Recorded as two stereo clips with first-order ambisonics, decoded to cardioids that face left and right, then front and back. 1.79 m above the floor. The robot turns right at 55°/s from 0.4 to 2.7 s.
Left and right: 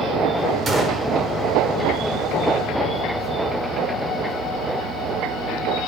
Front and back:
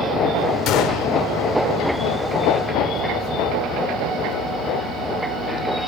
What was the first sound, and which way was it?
A gunshot, 25° right.